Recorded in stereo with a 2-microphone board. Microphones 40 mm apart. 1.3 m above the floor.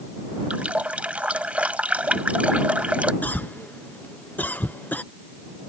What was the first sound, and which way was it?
A running tap, 35° right (ahead or behind).